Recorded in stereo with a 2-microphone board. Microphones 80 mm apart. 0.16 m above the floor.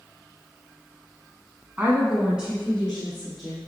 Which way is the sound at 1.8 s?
20° right (ahead or behind).